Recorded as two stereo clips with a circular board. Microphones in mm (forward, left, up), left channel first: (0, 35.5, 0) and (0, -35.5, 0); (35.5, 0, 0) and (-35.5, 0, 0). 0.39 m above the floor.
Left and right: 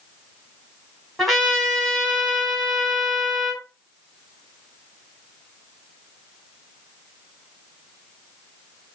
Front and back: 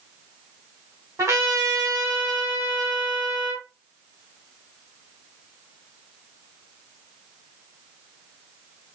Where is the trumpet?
175° left, 1.6 m.